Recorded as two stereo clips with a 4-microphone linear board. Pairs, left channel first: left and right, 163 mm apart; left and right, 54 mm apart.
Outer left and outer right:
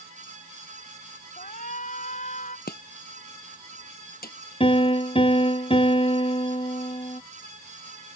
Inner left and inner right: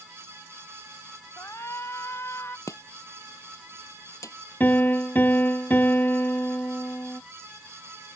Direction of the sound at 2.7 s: 70° left (ahead or behind).